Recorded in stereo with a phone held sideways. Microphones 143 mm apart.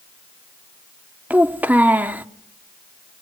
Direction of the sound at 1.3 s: 10° right (ahead or behind).